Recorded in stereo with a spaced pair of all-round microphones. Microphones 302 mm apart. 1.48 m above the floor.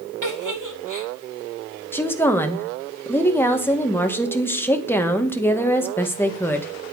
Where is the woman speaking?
5° left (ahead or behind), 1.8 m.